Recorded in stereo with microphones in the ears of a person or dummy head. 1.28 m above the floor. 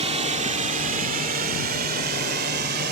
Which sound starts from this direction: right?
A drone, at 0.0 s.